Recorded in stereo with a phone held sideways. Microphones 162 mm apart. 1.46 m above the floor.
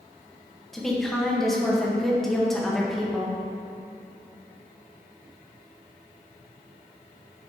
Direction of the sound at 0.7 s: Centre (ahead or behind).